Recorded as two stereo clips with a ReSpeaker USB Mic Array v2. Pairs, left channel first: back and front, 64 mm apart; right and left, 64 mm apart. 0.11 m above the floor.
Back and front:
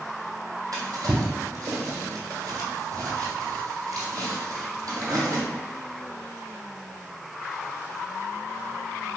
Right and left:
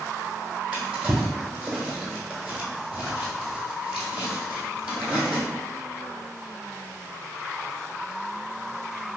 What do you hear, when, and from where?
0.7 s a drawer: 20° left, 1.7 m